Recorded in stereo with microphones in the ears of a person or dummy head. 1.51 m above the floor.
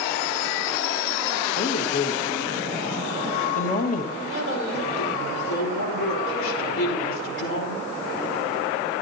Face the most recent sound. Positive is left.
turn(degrees=85)